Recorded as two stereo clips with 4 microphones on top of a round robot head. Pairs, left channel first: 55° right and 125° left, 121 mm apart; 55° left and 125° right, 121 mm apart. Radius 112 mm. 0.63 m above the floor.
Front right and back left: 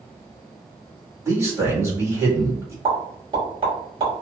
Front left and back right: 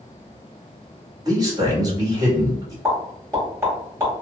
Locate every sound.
1.2 s a man speaking: 175° right, 1.7 m
2.9 s a pop: 165° left, 1.9 m